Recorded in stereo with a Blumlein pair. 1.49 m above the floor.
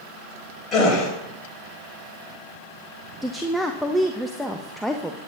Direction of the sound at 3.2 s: 5° left.